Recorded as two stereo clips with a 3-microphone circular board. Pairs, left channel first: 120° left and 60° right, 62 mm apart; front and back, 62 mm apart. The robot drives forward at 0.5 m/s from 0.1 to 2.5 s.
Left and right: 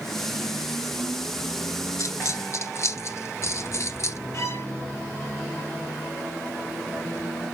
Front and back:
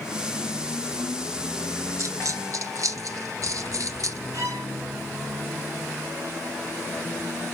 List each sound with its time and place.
2.0 s a dropped coin: 150° left, 0.9 m; by 4.2 s 155° left, 1.1 m
4.3 s a violin: 155° left, 2.5 m